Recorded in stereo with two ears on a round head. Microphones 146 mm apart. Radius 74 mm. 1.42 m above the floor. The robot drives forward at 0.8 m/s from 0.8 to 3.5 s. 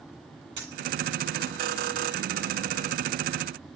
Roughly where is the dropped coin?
Right.